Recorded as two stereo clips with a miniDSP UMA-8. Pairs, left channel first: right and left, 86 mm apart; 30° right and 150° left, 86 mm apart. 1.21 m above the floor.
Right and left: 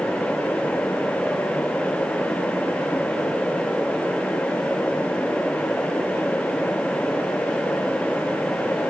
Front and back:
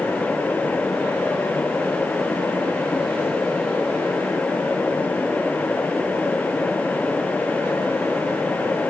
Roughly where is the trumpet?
No trumpet in this recording.